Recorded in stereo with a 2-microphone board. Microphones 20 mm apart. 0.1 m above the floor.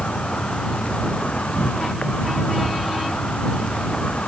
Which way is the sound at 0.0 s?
80° left.